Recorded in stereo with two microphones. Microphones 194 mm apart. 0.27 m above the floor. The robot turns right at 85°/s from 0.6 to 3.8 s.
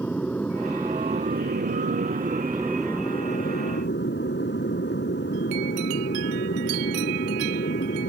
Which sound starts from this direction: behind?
An aircraft, at 0.0 s.